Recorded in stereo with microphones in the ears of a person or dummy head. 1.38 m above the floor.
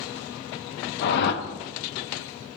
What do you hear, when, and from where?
1.0 s a whoosh: 60° left (ahead or behind), 0.5 m